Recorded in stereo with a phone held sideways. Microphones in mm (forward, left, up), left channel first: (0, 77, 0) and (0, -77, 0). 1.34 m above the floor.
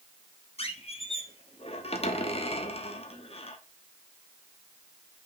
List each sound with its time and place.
0.6 s a squeak: 40° left (ahead or behind), 1.0 m